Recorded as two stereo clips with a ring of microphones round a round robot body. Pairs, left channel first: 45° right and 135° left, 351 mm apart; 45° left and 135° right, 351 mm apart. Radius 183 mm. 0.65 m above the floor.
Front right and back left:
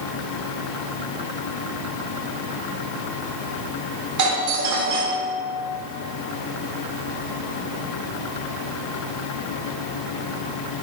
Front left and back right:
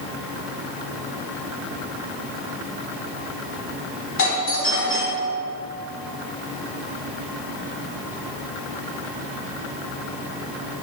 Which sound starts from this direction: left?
A doorbell, at 4.2 s.